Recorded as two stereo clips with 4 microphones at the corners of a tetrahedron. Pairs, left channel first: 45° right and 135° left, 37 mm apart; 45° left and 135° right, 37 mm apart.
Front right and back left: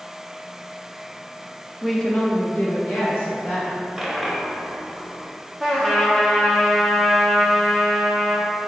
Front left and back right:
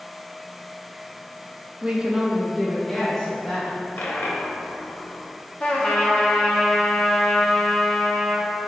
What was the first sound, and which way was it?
A woman speaking, 140° right.